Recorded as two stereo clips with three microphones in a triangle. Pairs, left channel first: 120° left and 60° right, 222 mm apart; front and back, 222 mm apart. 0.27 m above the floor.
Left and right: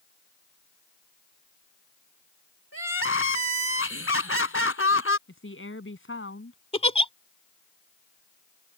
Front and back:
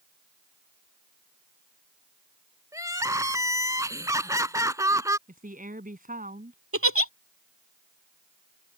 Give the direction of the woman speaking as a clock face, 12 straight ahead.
8 o'clock.